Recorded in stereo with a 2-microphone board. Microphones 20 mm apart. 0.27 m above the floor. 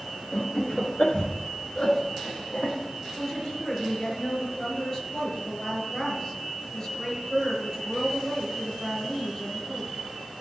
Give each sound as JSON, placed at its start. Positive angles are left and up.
{"t": 0.3, "sound": "laughter", "side_deg": 40, "distance_m": 4.0}
{"t": 3.2, "sound": "a woman speaking", "side_deg": 25, "distance_m": 5.5}